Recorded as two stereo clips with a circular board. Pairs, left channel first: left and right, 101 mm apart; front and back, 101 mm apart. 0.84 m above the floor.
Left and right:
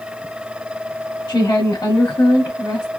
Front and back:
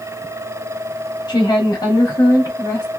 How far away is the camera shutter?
I don't hear a camera shutter.